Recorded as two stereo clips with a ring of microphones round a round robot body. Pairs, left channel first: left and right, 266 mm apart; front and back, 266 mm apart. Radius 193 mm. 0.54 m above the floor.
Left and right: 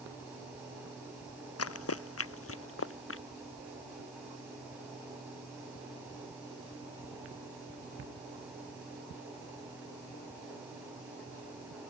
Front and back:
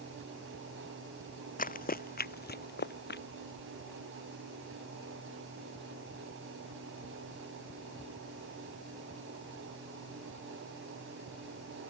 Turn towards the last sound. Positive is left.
turn(degrees=50)